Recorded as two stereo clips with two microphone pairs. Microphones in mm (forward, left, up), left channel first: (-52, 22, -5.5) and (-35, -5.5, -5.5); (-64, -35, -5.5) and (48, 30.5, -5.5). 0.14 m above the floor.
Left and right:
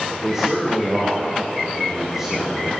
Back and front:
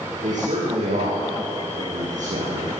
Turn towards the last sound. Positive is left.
turn(degrees=15)